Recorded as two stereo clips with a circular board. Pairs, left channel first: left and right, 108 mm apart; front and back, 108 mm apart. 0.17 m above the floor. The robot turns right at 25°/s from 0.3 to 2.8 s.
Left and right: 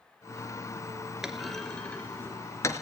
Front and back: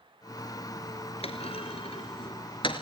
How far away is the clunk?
About 2 m.